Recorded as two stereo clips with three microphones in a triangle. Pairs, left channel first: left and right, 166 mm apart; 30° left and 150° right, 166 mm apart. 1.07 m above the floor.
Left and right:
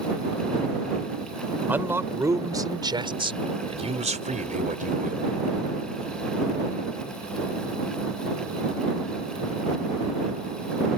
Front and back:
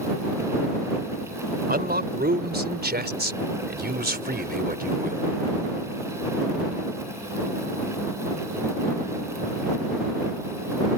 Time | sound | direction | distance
1.7 | a man speaking | 170° right | ?